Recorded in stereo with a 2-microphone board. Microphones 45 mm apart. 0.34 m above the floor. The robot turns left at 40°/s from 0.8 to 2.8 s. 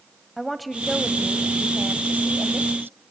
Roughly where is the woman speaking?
Ahead.